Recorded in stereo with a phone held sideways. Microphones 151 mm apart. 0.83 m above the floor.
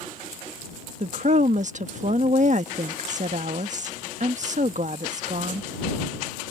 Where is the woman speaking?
55° right (ahead or behind).